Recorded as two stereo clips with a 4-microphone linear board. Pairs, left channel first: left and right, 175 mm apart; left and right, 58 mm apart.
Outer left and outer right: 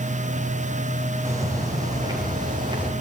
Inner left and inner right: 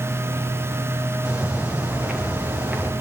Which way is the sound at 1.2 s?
20° right (ahead or behind).